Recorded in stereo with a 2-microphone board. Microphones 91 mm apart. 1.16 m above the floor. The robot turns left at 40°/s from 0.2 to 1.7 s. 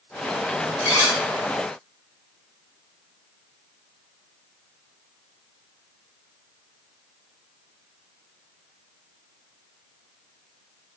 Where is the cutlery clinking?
30° right (ahead or behind), 0.8 m; by 1.2 s 45° right (ahead or behind), 0.8 m.